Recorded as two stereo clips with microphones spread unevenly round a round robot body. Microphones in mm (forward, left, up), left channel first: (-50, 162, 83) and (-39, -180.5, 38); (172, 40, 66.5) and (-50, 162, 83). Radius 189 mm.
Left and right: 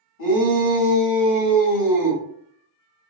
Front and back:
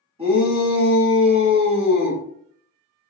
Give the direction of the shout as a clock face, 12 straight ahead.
9 o'clock.